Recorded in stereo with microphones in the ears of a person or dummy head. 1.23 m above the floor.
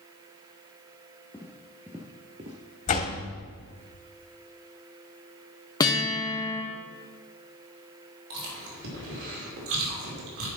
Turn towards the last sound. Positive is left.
turn(degrees=-70)  # may be behind; listen again after turning